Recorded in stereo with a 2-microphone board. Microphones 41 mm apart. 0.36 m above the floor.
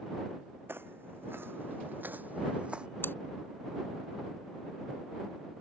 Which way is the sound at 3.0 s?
60° left (ahead or behind).